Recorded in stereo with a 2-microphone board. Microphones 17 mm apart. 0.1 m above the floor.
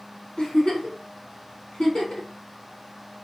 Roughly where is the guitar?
I don't hear a guitar.